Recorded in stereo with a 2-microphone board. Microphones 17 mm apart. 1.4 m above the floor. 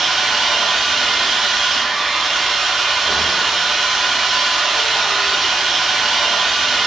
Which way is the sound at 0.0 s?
35° right (ahead or behind).